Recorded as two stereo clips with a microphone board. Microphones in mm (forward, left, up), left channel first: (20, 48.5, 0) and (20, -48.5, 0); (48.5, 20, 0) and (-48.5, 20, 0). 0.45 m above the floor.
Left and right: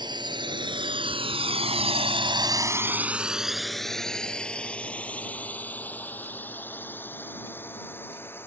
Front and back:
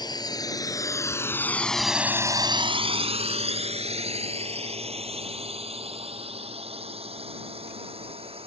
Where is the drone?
45° right; by 8.5 s 160° left.